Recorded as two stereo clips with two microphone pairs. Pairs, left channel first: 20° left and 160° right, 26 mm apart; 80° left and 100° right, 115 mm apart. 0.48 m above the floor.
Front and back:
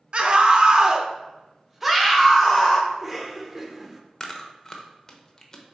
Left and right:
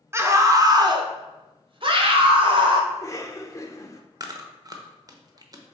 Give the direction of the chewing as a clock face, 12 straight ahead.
2 o'clock.